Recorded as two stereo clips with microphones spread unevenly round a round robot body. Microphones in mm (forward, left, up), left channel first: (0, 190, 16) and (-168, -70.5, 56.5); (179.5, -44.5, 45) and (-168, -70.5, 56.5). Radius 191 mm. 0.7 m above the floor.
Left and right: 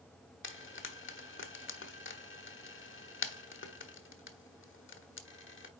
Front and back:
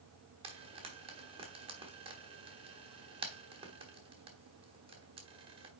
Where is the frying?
110° left, 1.1 m.